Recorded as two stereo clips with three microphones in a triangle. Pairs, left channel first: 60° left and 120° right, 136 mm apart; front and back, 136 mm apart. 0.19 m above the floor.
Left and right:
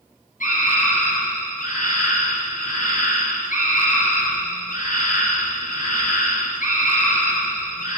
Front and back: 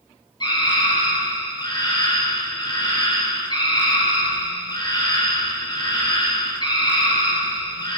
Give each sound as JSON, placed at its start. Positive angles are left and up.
{"t": 0.4, "sound": "a scream", "azimuth_deg": 55, "distance_m": 5.0}